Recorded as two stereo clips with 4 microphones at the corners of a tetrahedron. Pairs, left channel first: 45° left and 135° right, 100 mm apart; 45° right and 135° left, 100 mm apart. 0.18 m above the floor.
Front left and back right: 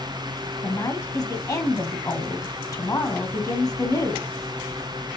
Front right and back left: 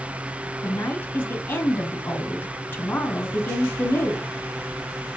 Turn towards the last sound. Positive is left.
turn(degrees=10)